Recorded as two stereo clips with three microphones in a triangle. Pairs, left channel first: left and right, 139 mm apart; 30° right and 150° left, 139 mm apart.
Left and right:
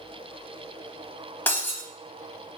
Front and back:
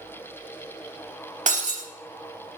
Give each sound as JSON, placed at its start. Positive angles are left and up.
{"t": 1.5, "sound": "breaking glass", "azimuth_deg": 165, "distance_m": 0.6}